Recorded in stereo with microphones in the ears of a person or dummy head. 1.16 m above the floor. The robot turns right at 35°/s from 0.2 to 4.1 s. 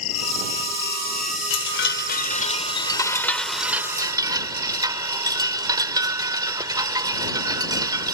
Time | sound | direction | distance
0.0 | an insect | 95° left | ?
1.5 | a chime | 105° left | ?